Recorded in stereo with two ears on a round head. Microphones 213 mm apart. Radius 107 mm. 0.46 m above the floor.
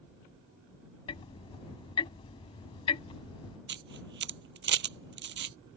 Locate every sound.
1.1 s ticking: 25° left (ahead or behind)
3.7 s a camera shutter: 50° right (ahead or behind)